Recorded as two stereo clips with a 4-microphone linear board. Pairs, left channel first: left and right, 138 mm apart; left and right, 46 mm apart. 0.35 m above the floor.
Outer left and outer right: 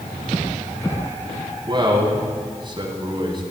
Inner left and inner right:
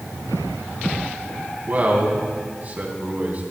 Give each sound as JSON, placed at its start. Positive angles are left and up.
{"t": 1.6, "sound": "a man speaking", "side_deg": -35, "distance_m": 2.5}